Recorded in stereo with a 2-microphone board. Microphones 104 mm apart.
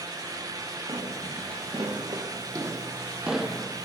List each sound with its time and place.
0.9 s footsteps: 60° right (ahead or behind), 3 m; by 3.9 s 15° left (ahead or behind), 1.4 m